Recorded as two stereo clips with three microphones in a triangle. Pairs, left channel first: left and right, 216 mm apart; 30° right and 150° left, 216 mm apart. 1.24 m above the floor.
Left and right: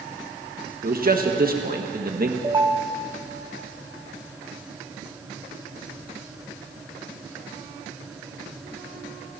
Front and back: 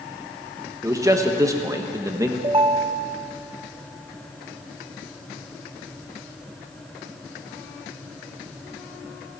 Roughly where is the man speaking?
Behind right.